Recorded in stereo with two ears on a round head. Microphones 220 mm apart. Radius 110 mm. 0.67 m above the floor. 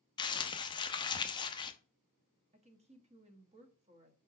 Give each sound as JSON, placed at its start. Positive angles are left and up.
{"t": 0.2, "sound": "crumpling", "side_deg": 20, "distance_m": 0.7}
{"t": 2.5, "sound": "a woman speaking", "side_deg": -25, "distance_m": 1.0}